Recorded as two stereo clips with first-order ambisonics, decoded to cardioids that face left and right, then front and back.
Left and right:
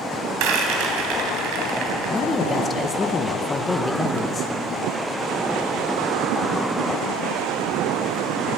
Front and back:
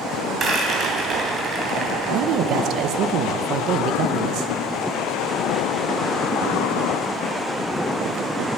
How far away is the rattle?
About 2.5 m.